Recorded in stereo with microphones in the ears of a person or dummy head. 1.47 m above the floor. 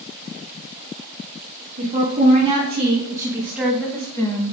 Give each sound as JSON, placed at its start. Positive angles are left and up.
{"t": 1.8, "sound": "a woman speaking", "side_deg": -40, "distance_m": 2.5}